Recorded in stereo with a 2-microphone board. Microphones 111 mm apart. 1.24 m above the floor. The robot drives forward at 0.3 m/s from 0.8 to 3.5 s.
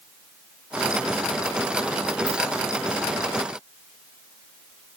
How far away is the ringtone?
About 1.5 m.